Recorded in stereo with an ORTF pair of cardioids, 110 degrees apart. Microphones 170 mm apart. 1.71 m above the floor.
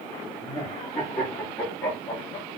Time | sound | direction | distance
0.4 | laughter | 5° left | 2.5 m